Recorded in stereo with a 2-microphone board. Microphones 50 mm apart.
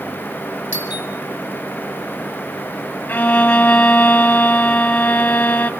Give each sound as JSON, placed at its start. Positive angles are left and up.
{"t": 0.7, "sound": "a doorbell", "side_deg": -40, "distance_m": 4.5}
{"t": 3.1, "sound": "a violin", "side_deg": 30, "distance_m": 1.7}